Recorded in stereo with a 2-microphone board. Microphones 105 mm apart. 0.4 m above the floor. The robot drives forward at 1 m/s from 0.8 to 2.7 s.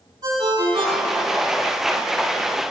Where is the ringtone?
60° right (ahead or behind), 3 m; by 1.4 s 50° right (ahead or behind), 3 m.